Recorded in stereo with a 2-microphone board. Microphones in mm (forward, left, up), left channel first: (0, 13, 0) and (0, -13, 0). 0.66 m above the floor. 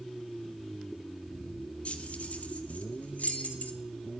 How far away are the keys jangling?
About 1.2 m.